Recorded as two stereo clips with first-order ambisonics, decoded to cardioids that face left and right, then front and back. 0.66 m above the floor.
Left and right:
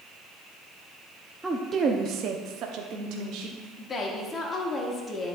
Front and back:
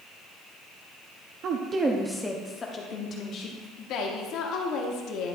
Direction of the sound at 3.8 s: 25° left.